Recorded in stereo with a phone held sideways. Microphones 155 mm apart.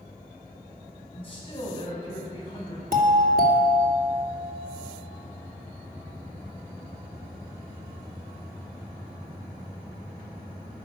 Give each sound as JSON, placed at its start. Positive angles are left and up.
{"t": 1.1, "sound": "a man speaking", "side_deg": 35, "distance_m": 4.5}
{"t": 2.9, "sound": "a doorbell", "side_deg": -65, "distance_m": 2.5}